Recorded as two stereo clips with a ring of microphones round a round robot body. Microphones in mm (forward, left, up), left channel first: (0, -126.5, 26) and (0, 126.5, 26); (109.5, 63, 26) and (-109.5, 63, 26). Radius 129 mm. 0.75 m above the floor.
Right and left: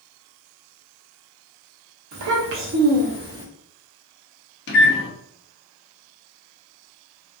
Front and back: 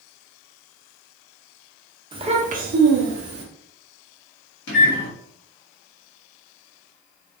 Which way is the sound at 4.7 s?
40° right.